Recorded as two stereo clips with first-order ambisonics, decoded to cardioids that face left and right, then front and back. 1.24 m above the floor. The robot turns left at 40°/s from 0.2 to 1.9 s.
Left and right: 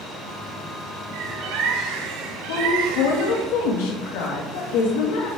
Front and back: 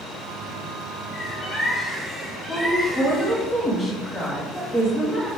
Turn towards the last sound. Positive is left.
turn(degrees=85)